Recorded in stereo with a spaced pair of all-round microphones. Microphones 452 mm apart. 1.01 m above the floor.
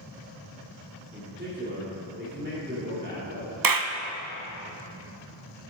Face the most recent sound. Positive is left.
turn(degrees=-45)  # may be behind; listen again after turning